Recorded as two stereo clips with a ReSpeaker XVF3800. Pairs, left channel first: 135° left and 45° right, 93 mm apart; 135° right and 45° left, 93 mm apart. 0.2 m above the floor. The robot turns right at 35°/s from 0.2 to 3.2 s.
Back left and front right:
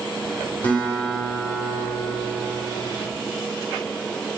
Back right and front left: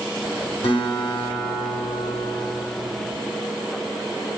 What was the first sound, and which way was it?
A guitar, 155° right.